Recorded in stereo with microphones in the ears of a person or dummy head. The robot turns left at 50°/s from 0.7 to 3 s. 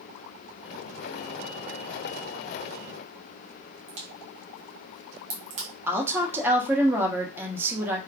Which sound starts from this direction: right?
A crack, at 3.9 s.